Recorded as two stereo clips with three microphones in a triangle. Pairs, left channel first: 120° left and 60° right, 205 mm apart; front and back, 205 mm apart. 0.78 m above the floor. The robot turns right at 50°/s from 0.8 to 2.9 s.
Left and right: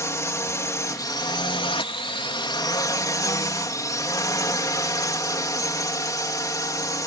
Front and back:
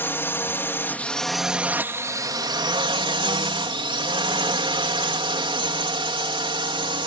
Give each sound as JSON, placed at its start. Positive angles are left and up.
{"t": 0.0, "sound": "a drone", "azimuth_deg": 65}